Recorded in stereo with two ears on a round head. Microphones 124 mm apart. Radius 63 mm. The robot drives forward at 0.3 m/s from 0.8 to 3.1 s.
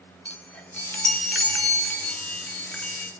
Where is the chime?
10° left (ahead or behind), 2.5 m.